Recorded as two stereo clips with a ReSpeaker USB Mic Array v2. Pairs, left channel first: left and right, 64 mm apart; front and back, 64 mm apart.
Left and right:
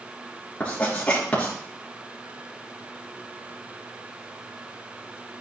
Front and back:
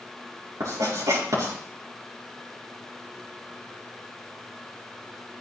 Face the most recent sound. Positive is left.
turn(degrees=160)